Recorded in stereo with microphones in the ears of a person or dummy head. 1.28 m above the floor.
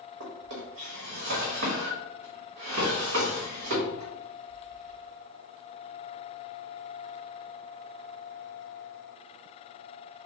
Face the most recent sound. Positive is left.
turn(degrees=-65)  # may be behind; listen again after turning